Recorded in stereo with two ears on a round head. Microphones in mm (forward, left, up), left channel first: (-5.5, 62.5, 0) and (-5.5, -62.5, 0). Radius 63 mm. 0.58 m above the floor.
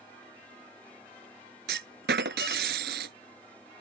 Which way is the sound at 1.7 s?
85° right.